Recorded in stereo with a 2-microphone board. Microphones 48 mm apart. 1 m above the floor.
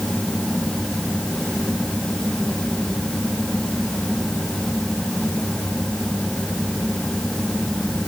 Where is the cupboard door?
No cupboard door in this recording.